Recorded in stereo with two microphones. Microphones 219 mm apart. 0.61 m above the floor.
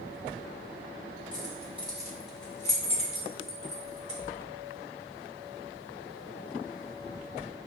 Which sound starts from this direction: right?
Keys jangling, at 1.3 s.